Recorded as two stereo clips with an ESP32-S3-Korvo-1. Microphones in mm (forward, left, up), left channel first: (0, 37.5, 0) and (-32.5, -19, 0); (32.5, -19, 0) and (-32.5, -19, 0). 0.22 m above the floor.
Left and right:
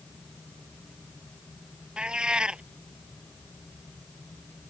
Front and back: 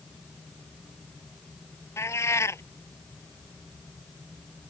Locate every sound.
2.0 s a cat meowing: 45° right